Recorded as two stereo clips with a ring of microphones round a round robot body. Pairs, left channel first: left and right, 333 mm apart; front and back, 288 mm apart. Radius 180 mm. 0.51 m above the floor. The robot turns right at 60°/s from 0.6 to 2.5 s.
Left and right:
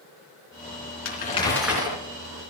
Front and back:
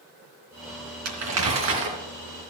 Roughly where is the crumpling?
Behind left.